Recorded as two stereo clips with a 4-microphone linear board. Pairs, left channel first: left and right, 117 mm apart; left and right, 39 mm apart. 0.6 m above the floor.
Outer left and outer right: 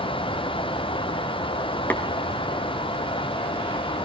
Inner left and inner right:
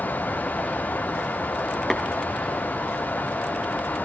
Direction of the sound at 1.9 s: 15° left (ahead or behind).